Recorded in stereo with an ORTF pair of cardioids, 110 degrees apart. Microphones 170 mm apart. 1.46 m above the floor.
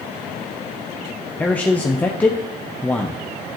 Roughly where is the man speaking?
Ahead.